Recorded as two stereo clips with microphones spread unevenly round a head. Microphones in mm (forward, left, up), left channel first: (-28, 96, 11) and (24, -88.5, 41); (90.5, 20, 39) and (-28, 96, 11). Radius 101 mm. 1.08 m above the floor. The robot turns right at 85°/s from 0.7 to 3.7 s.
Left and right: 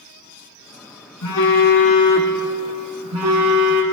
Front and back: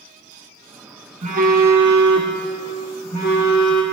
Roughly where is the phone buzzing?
Left.